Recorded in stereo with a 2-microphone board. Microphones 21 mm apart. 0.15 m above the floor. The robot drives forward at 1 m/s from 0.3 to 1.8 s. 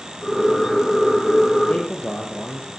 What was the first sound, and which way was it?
A man speaking, 70° left (ahead or behind).